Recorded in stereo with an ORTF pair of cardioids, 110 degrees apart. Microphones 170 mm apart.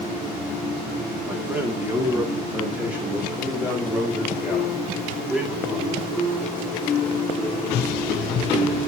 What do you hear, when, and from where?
1.3 s a man speaking: 10° right, 3 m